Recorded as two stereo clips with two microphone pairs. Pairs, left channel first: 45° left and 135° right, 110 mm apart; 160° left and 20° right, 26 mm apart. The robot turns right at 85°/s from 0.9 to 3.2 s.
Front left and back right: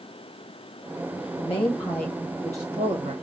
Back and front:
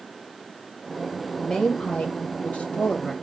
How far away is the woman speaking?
About 1.1 m.